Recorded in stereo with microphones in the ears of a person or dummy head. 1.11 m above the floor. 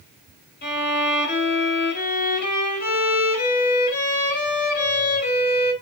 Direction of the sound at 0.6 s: 45° left (ahead or behind).